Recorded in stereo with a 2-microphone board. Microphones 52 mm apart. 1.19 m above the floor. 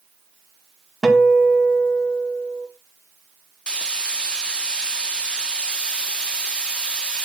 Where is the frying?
20° left (ahead or behind), 0.9 m.